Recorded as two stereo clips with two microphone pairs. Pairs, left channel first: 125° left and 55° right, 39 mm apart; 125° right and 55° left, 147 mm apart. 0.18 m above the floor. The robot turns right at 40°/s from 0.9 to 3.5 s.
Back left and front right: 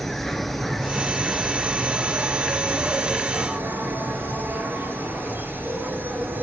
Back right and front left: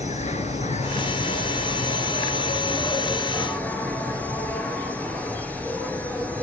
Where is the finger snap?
No finger snap in this recording.